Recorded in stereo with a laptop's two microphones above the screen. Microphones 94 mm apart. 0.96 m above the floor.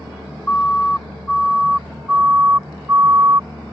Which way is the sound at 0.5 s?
15° left (ahead or behind).